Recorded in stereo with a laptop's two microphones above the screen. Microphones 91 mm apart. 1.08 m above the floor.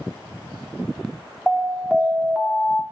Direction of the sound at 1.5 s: 5° right (ahead or behind).